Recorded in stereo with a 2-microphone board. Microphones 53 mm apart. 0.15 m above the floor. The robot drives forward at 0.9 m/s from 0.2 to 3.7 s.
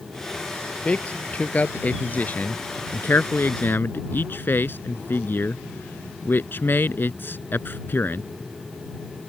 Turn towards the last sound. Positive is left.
turn(degrees=45)  # may be behind; listen again after turning